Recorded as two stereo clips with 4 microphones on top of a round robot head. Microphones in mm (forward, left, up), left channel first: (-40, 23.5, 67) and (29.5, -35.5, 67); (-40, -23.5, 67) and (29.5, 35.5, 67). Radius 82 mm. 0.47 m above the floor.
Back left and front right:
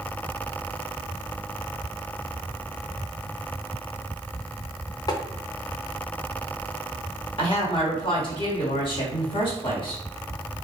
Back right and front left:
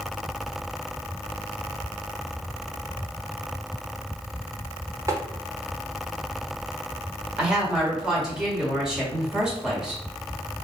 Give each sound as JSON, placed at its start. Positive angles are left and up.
{"t": 5.1, "sound": "tapping", "azimuth_deg": 95, "distance_m": 0.7}
{"t": 7.4, "sound": "a woman speaking", "azimuth_deg": 120, "distance_m": 1.6}